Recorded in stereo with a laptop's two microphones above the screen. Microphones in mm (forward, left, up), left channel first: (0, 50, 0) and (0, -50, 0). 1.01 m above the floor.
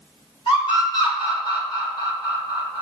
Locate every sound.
0.5 s a scream: 50° left (ahead or behind), 1.7 m